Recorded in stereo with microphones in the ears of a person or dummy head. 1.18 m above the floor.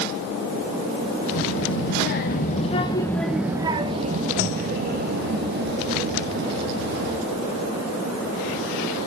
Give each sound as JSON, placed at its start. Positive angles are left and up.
{"t": 1.3, "sound": "a child speaking", "side_deg": 65, "distance_m": 1.2}